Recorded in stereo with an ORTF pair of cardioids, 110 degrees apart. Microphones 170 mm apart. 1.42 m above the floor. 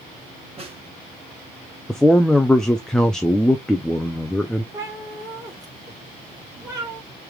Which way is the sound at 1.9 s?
5° left.